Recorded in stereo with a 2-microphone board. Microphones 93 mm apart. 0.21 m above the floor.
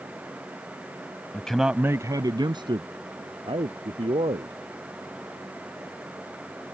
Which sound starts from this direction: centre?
A man speaking, at 1.3 s.